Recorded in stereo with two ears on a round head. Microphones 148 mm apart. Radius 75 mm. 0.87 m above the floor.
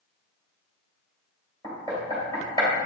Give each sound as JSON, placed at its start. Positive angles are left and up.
{"t": 1.6, "sound": "knocking", "side_deg": 20, "distance_m": 2.5}